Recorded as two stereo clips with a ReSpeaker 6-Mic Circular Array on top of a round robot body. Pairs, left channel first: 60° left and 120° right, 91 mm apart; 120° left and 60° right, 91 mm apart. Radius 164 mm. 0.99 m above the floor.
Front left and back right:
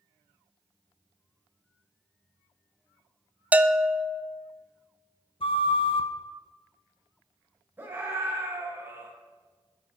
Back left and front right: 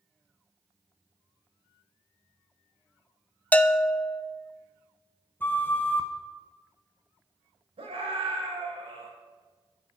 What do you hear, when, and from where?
3.5 s a bell: straight behind, 0.8 m
5.4 s a flute: 55° left, 1.2 m
7.8 s a scream: 50° right, 4 m